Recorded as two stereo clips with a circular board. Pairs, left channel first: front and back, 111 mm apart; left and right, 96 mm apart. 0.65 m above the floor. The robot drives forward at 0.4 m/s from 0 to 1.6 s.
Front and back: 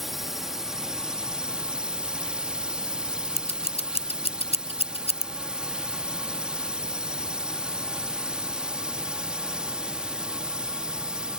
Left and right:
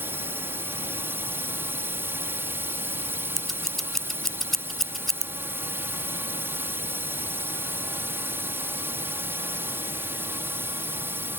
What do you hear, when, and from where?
0.0 s a drone: 95° right; by 11.4 s 110° right
3.4 s scissors: 5° left